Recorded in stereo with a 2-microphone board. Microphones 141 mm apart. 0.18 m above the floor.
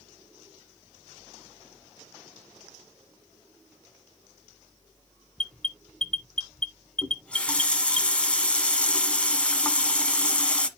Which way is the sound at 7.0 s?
10° left (ahead or behind).